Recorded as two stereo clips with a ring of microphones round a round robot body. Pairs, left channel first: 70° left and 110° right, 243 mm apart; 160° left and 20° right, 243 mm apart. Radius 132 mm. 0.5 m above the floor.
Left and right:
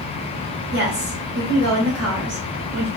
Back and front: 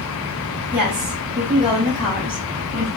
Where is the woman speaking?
70° right, 2.5 m.